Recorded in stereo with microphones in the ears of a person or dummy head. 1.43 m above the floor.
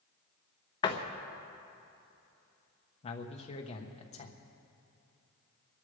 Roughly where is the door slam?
Left.